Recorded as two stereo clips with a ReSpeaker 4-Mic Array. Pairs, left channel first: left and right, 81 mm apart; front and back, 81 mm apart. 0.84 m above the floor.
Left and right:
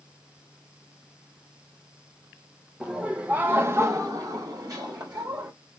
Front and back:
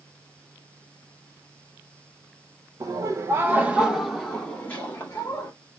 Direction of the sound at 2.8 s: 170° right.